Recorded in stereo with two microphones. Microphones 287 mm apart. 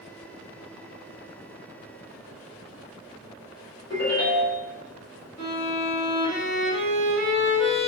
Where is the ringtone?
60° left (ahead or behind), 2.5 m.